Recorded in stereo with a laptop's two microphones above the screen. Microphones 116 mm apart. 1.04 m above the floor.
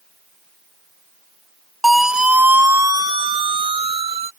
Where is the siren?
Centre (ahead or behind); by 4.3 s 65° right (ahead or behind).